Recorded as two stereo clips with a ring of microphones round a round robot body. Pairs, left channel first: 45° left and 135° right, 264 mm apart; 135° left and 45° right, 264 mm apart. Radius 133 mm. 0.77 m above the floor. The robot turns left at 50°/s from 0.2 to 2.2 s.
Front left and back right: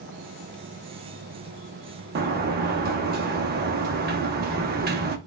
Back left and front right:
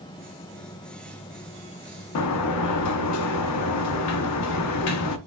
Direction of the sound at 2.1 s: 170° left.